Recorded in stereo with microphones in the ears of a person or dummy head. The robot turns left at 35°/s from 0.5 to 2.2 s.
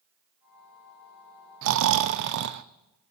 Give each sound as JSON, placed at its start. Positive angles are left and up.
{"t": 1.6, "sound": "snoring", "side_deg": -70, "distance_m": 0.5}